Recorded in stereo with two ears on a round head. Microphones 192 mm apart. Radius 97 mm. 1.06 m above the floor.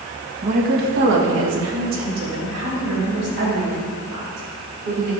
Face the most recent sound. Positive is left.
turn(degrees=-75)  # may be behind; listen again after turning